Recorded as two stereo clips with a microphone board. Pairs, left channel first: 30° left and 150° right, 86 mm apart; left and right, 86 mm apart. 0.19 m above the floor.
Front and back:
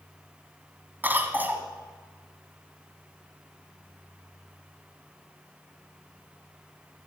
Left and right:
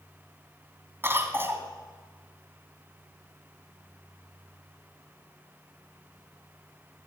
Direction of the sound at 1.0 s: 110° right.